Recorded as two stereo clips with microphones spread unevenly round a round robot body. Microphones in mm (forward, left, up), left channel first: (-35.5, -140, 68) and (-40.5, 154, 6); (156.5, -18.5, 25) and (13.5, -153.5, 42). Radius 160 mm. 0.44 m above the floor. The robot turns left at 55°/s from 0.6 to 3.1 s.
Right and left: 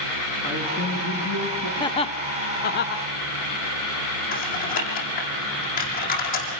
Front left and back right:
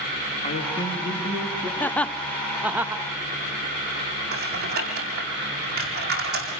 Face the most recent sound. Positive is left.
turn(degrees=-150)